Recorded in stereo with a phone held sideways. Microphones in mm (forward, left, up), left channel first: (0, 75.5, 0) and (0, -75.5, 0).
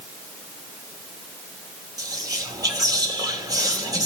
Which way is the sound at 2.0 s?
25° right (ahead or behind).